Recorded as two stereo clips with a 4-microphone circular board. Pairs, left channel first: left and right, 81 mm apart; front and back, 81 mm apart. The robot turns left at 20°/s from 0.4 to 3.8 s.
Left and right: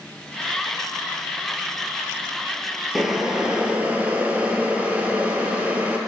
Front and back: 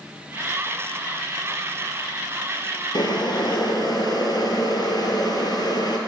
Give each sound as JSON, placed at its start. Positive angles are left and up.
{"t": 3.0, "sound": "boiling", "azimuth_deg": 0, "distance_m": 0.9}